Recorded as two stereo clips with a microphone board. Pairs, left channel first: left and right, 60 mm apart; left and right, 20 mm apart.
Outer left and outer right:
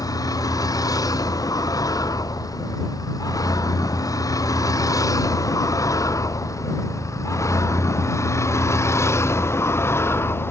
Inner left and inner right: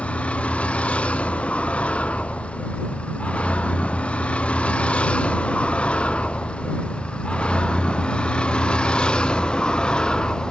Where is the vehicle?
90° left; by 10.5 s 40° left (ahead or behind).